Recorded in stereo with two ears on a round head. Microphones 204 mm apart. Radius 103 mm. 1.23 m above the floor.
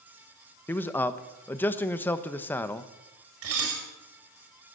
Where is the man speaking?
10° left (ahead or behind), 1.0 m.